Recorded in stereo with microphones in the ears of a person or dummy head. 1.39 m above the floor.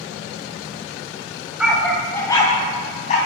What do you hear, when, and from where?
1.6 s a dog barking: centre (ahead or behind), 2.5 m; by 3.2 s 50° left (ahead or behind), 3 m